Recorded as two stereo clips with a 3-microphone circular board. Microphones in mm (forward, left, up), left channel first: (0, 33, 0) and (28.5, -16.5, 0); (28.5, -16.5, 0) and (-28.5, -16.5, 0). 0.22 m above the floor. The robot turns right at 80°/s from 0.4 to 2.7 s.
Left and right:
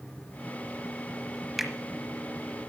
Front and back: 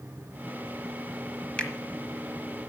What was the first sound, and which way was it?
A finger snap, 15° left.